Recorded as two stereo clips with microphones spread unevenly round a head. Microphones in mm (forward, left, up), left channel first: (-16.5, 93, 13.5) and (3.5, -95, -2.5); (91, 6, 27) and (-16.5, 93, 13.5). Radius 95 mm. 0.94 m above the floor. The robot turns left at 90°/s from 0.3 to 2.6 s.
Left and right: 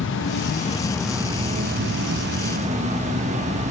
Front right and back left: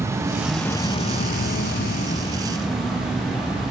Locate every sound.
0.0 s an insect: 75° left, 0.7 m; by 3.7 s 135° right, 0.7 m